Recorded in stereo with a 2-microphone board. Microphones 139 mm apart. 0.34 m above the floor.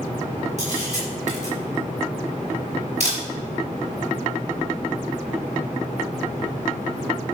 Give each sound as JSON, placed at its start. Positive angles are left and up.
{"t": 0.6, "sound": "a camera shutter", "side_deg": -55, "distance_m": 4.5}